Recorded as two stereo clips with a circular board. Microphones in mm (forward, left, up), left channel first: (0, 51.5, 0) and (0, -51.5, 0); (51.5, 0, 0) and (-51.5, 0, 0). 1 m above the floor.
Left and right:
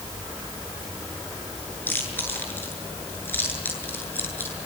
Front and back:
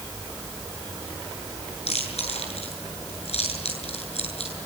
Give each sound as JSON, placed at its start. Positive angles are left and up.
{"t": 1.9, "sound": "chewing", "azimuth_deg": 20, "distance_m": 8.0}